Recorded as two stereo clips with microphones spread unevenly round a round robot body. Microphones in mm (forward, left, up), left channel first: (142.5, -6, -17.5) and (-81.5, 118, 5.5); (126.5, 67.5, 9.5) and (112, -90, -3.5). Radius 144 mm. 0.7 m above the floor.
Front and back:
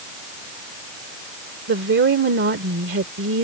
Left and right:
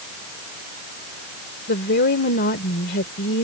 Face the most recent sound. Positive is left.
turn(degrees=105)